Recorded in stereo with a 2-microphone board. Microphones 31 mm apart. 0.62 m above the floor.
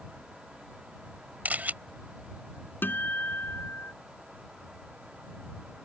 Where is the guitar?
85° left.